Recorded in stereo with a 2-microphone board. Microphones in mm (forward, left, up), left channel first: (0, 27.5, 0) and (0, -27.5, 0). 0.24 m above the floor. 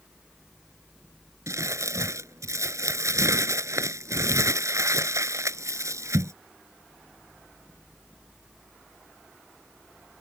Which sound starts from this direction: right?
Crumpling, at 1.5 s.